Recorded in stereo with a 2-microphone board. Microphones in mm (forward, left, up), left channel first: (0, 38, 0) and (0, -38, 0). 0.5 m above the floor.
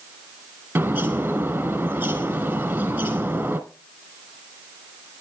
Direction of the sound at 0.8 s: 25° right (ahead or behind).